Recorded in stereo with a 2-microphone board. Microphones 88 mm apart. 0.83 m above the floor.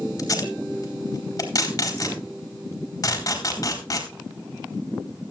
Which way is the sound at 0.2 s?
45° left (ahead or behind).